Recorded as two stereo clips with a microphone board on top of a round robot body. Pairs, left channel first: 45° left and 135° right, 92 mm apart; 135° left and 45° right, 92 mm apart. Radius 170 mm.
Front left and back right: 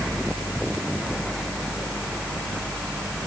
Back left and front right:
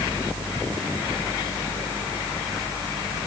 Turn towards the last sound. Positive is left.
No sound to turn to.